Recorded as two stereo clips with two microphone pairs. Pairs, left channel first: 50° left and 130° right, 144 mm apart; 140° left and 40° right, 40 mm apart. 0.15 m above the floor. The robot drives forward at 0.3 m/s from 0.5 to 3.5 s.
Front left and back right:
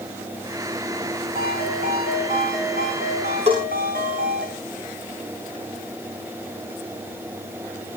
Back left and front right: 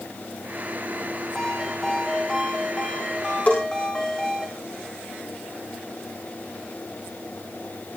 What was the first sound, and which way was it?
A ringtone, 140° right.